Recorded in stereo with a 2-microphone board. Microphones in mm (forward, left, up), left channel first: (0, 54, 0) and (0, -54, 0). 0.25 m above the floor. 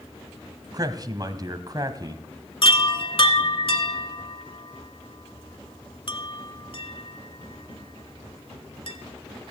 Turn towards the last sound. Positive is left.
turn(degrees=55)  # may be behind; listen again after turning